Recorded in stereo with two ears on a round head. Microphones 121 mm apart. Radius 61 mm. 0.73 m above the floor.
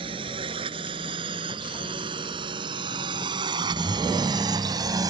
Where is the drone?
40° right (ahead or behind); by 5.1 s 30° right (ahead or behind).